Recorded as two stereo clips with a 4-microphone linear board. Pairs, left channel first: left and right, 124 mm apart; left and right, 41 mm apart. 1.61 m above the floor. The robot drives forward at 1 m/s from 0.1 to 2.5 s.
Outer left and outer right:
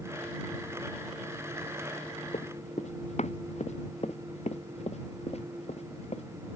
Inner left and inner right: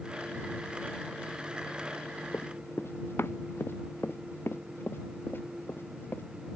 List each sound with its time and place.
2.3 s running footsteps: 70° left (ahead or behind); by 6.2 s 60° left (ahead or behind)